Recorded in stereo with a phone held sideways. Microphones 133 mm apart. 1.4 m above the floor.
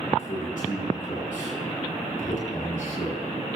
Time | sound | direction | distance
0.2 | a man speaking | 85° left | 5.5 m